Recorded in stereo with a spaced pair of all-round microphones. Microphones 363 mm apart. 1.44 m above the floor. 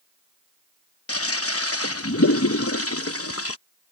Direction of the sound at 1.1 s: 35° left (ahead or behind).